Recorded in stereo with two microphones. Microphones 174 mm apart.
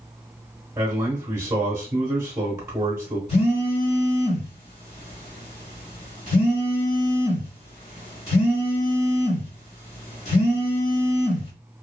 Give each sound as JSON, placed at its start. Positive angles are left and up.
{"t": 0.8, "sound": "a man speaking", "side_deg": -15, "distance_m": 0.9}
{"t": 3.3, "sound": "a phone buzzing", "side_deg": 40, "distance_m": 1.6}